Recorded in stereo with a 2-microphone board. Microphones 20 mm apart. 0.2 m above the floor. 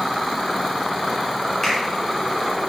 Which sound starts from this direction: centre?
A finger snap, at 1.6 s.